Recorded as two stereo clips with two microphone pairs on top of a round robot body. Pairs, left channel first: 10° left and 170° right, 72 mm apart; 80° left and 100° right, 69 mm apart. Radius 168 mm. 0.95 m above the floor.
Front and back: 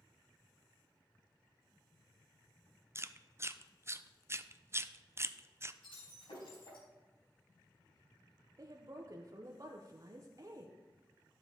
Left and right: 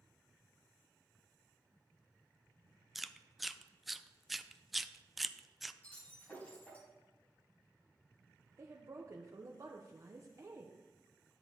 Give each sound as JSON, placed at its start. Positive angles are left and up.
{"t": 3.0, "sound": "chewing", "azimuth_deg": 165, "distance_m": 0.7}
{"t": 5.8, "sound": "breaking glass", "azimuth_deg": 10, "distance_m": 4.0}
{"t": 8.6, "sound": "a woman speaking", "azimuth_deg": -140, "distance_m": 1.1}